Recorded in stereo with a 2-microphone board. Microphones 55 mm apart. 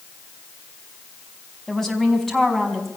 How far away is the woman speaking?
About 4.5 m.